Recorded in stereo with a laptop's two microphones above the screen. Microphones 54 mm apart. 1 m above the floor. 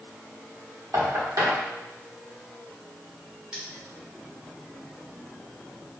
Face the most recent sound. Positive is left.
turn(degrees=-15)  # may be behind; listen again after turning